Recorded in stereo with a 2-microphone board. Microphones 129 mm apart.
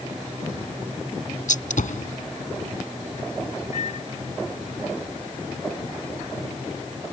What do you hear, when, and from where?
1.5 s a gunshot: 90° left
3.7 s a microwave: 65° left (ahead or behind)